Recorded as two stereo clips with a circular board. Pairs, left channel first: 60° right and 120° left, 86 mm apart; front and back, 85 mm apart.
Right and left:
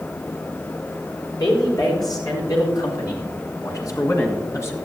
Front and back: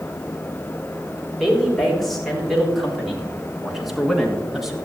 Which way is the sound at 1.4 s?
90° right.